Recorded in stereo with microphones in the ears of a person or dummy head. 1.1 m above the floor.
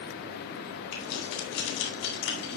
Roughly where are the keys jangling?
Left.